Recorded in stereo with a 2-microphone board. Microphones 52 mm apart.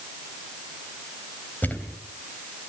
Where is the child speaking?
I don't hear a child speaking.